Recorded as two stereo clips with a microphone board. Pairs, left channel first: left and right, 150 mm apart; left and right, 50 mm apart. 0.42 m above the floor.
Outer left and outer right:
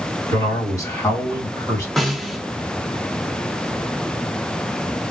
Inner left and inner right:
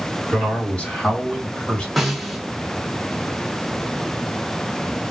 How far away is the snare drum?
About 1.0 m.